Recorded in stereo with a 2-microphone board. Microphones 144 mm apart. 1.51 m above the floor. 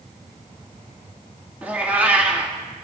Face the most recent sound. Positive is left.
turn(degrees=-10)  # may be behind; listen again after turning